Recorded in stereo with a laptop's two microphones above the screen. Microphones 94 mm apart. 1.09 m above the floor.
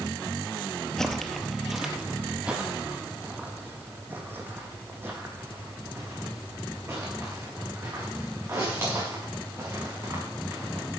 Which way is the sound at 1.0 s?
5° left (ahead or behind).